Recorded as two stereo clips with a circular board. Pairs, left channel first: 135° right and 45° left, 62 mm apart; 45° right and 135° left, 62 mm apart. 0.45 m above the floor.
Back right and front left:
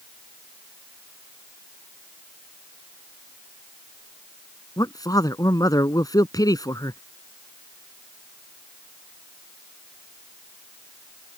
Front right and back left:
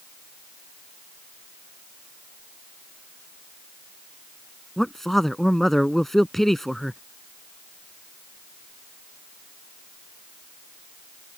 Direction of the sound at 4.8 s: 130° right.